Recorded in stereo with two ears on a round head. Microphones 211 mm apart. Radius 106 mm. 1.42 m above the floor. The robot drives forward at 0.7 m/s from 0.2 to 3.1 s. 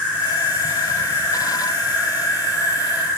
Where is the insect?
10° right (ahead or behind), 1.5 m; by 3.2 s 5° right (ahead or behind), 1.7 m.